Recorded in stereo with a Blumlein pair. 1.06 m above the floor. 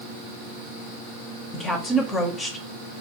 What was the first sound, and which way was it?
A woman speaking, 20° left.